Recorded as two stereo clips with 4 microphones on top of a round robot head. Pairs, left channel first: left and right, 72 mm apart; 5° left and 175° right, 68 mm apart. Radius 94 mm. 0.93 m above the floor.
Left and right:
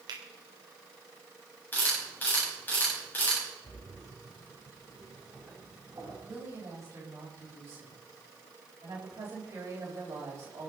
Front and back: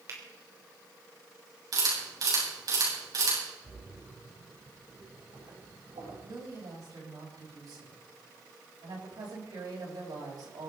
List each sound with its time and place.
0.1 s a finger snap: 125° right, 3.5 m
1.7 s a camera shutter: 155° left, 9 m
3.6 s a splash: 160° right, 8 m
6.2 s a woman speaking: 145° right, 5.5 m